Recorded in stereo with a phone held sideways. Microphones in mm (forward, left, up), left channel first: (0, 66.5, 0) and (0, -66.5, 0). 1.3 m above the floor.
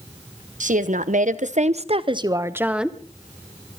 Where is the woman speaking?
70° right (ahead or behind), 1.2 m; by 3.0 s centre (ahead or behind), 0.9 m.